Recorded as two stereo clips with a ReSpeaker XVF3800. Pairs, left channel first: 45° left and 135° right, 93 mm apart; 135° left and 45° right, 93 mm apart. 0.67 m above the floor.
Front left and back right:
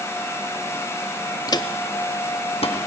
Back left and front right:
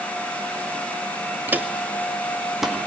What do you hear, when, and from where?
1.5 s footsteps: 15° left, 0.8 m; by 2.9 s 45° left, 2.5 m